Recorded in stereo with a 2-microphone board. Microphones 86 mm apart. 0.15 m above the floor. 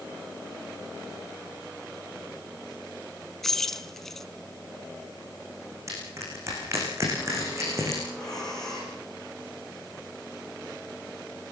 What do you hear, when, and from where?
3.4 s keys jangling: 5° left (ahead or behind), 1.0 m
5.9 s crushing: 35° right (ahead or behind), 9.5 m
8.1 s breathing: 5° left (ahead or behind), 9 m